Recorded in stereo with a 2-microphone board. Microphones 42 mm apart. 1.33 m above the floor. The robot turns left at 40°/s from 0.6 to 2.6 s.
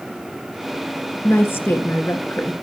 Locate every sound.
1.2 s a woman speaking: 125° left, 2 m; by 2.5 s 70° left, 2 m